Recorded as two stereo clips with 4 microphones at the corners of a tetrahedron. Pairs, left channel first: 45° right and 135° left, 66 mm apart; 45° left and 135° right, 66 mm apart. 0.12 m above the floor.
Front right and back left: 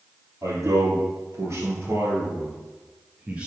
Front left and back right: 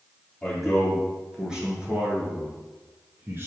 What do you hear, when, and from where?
0.4 s a man speaking: 135° left, 3 m; by 3.5 s 160° right, 2.5 m